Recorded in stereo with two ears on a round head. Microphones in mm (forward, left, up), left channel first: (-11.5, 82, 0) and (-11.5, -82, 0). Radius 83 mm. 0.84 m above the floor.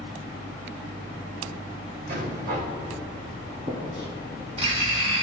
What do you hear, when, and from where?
2.1 s a rattle: 60° right (ahead or behind), 4.5 m
3.7 s writing: 40° right (ahead or behind), 4.5 m